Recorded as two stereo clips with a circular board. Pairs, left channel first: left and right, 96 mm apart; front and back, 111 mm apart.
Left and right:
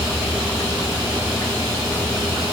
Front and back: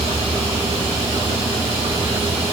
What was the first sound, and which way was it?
Only background noise.